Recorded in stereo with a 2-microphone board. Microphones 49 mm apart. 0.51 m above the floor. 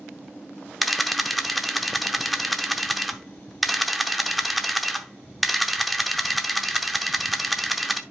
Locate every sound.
0.8 s a camera shutter: centre (ahead or behind), 0.7 m